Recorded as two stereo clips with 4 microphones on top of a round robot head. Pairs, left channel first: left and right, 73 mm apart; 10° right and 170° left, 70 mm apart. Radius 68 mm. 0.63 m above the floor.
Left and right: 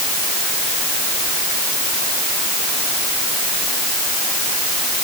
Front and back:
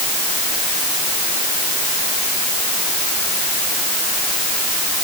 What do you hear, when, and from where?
Only background noise.